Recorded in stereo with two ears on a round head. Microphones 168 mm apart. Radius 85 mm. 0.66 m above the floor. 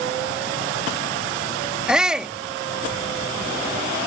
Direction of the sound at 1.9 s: 5° right (ahead or behind).